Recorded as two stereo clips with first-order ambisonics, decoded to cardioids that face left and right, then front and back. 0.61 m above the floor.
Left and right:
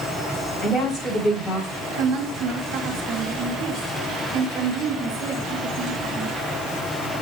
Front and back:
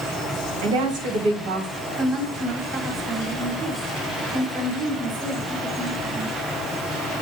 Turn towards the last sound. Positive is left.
turn(degrees=-125)